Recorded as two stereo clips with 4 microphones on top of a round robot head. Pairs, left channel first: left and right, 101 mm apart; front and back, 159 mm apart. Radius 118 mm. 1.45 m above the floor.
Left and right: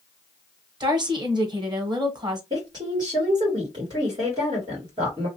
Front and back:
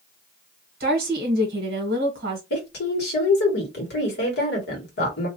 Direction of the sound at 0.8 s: 140° right.